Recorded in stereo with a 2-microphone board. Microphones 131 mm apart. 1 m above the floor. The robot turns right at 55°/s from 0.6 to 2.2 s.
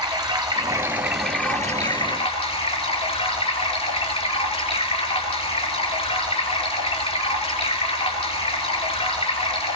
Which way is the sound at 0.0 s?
35° right.